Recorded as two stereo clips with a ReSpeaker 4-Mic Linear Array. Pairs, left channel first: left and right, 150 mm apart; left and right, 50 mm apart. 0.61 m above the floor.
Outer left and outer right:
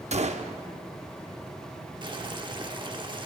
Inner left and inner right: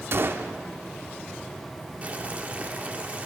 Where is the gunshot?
50° right (ahead or behind), 0.8 m.